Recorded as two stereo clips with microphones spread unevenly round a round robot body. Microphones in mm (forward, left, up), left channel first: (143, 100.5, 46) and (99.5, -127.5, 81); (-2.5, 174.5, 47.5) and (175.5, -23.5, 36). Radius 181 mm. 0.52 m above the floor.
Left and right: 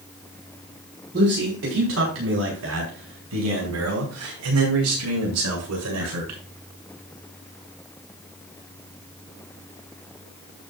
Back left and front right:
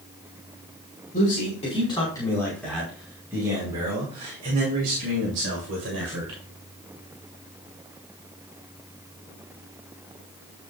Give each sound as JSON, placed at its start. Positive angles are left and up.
{"t": 1.1, "sound": "a man speaking", "azimuth_deg": -160, "distance_m": 5.0}